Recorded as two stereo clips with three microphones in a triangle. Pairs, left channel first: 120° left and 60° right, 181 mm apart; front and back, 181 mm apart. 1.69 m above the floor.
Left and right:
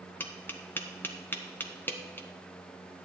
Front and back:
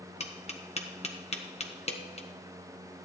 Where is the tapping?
45° left, 0.9 m.